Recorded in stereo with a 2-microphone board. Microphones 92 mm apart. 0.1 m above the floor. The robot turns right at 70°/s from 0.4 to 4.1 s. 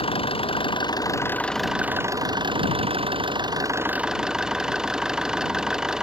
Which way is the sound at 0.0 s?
95° left.